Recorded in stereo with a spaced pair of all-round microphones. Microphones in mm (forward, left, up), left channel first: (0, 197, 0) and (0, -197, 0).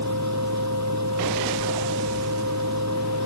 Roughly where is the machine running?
Right.